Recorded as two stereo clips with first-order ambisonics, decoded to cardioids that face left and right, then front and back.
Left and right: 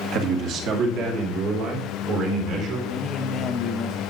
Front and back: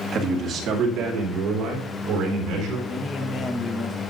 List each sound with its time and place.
0.1 s a man speaking: 120° right, 1.6 m; by 2.8 s 140° right, 3.5 m
2.9 s a man speaking: 35° left, 1.0 m